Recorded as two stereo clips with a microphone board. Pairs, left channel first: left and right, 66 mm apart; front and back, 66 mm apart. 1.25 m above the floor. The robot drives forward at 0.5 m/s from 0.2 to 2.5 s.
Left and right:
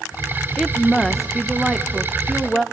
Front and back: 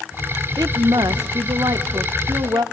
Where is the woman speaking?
Straight behind, 0.9 m.